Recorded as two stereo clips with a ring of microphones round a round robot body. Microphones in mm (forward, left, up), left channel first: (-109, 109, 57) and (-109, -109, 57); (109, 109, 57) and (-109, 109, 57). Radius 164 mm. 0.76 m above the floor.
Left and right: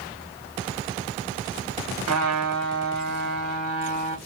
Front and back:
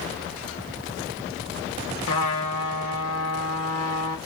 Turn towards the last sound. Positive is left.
turn(degrees=-50)